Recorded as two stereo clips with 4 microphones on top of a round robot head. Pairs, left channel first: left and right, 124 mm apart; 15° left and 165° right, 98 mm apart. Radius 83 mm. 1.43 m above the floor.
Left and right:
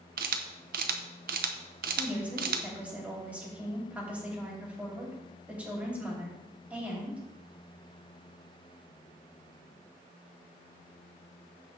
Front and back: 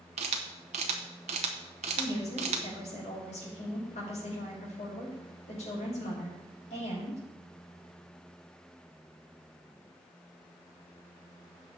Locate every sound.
0.2 s a camera shutter: 120° right, 0.7 m
2.0 s a woman speaking: 10° right, 4.5 m